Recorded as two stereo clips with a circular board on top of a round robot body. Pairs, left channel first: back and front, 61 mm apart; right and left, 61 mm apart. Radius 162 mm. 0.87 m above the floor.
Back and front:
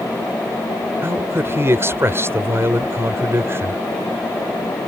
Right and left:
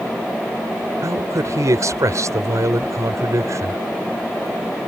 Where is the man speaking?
50° left.